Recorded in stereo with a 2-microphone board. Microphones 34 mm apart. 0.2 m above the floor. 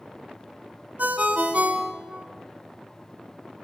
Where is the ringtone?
55° right (ahead or behind), 0.7 m.